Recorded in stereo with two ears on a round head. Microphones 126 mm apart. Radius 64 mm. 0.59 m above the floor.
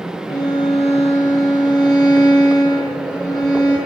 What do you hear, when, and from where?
0.3 s a violin: 25° left (ahead or behind), 7 m